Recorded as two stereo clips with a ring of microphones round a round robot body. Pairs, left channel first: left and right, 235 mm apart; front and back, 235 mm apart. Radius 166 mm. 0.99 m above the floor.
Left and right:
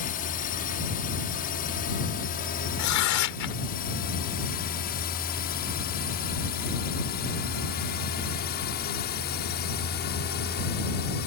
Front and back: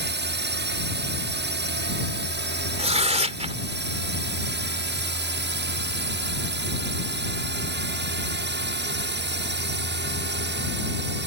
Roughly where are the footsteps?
No footsteps in this recording.